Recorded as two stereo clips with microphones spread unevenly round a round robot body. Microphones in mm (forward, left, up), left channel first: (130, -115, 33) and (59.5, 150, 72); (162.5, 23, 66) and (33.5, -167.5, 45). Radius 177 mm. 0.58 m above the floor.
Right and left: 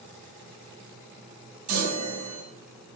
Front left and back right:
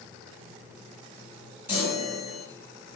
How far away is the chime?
About 2 m.